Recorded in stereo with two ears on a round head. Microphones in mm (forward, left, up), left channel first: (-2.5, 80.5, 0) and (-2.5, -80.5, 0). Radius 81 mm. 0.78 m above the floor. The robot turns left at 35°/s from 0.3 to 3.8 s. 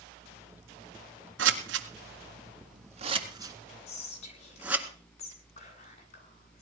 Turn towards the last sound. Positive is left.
turn(degrees=35)  # may be behind; listen again after turning